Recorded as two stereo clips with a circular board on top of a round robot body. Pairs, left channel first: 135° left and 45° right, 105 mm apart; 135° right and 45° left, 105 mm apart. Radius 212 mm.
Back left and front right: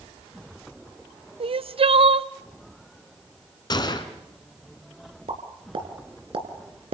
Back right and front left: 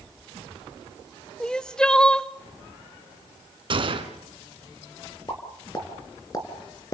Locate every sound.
1.4 s crying: 55° right, 0.9 m
3.7 s a gunshot: 85° left, 2 m
5.3 s a pop: 80° right, 3 m